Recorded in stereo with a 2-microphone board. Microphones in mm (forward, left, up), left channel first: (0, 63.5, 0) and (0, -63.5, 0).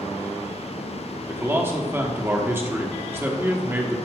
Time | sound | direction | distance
1.3 | a man speaking | 15° right (ahead or behind) | 1.0 m